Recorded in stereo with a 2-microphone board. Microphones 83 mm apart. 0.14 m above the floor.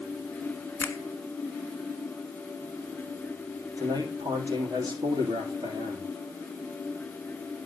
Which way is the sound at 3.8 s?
50° right (ahead or behind).